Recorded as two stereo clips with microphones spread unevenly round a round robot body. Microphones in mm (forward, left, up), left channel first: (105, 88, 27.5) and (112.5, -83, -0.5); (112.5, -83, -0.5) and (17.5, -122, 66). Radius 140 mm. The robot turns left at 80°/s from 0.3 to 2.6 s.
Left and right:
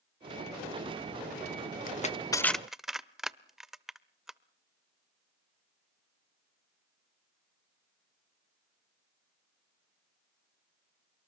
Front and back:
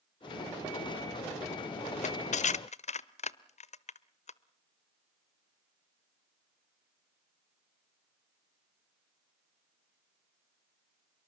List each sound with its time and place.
1.9 s crushing: 65° left, 0.9 m; by 4.4 s 5° left, 0.9 m